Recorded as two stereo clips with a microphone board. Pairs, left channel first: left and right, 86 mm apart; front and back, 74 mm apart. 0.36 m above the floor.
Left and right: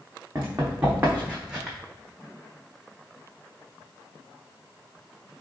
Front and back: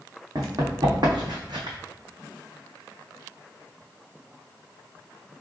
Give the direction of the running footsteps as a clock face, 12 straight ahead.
5 o'clock.